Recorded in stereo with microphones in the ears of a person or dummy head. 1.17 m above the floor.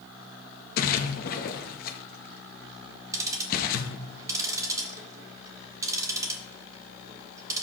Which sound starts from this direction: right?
Ticking, at 3.1 s.